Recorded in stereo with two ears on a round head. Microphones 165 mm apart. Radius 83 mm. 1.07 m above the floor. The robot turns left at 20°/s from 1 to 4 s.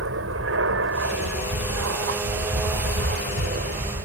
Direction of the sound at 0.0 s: 75° right.